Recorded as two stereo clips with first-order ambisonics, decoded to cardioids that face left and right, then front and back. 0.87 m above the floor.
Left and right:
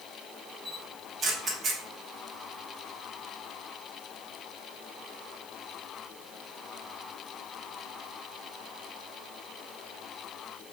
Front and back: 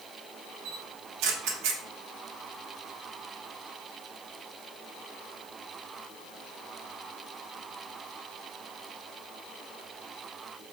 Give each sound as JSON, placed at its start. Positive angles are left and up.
{"t": 0.7, "sound": "a camera shutter", "azimuth_deg": -160, "distance_m": 0.8}